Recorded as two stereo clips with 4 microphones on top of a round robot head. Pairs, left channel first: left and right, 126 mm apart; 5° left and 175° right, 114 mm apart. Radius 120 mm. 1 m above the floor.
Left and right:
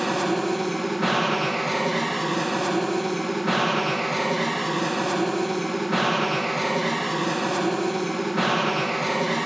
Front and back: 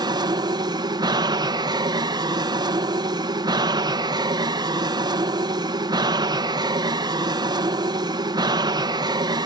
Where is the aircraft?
Straight behind.